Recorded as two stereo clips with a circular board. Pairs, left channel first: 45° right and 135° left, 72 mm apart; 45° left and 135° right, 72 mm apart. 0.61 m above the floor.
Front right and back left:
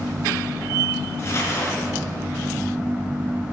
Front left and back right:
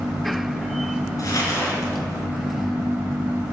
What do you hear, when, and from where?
1.2 s crumpling: 10° left, 5 m